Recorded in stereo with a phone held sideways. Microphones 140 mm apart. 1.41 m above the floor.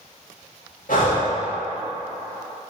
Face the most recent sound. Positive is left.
turn(degrees=70)  # may be behind; listen again after turning